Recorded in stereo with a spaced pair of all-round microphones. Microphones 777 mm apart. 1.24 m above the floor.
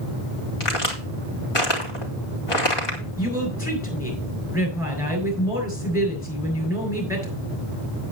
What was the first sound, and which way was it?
A crack, 35° left (ahead or behind).